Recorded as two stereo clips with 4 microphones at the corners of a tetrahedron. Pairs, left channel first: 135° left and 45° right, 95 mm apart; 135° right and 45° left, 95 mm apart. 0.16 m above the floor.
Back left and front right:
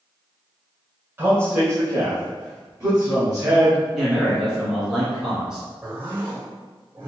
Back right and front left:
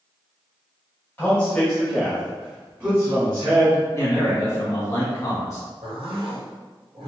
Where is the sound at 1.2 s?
85° right, 1.4 m; by 3.8 s straight ahead, 2 m.